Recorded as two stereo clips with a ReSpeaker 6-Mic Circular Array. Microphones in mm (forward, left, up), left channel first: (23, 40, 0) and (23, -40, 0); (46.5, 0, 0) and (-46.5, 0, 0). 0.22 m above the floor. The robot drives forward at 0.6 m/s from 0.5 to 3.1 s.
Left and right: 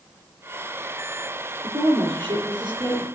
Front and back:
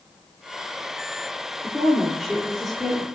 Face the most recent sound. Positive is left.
turn(degrees=-95)